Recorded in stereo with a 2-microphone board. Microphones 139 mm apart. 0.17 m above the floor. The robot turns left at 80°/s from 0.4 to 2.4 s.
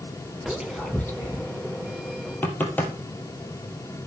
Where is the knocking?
15° left (ahead or behind), 3 m.